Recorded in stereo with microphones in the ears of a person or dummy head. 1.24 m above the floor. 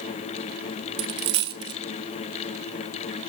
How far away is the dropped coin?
About 1.3 m.